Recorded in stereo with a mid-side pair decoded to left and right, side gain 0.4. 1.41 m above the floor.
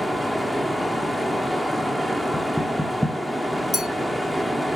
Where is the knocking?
5° left, 1.8 m.